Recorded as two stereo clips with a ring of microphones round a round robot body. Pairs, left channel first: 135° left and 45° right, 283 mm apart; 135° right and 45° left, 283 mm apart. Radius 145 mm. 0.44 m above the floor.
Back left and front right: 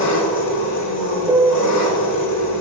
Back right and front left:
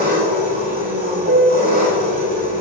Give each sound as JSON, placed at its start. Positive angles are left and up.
{"t": 0.0, "sound": "an engine running", "azimuth_deg": 105, "distance_m": 4.5}
{"t": 1.3, "sound": "a piano", "azimuth_deg": 30, "distance_m": 1.4}